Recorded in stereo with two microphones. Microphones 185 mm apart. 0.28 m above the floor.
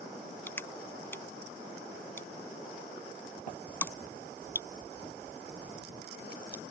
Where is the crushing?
10° left (ahead or behind).